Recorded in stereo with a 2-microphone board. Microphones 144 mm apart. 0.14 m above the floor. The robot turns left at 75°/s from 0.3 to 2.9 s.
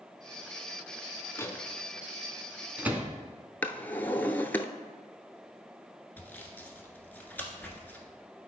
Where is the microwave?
20° left (ahead or behind), 0.9 m; by 3.1 s 10° right (ahead or behind), 0.9 m.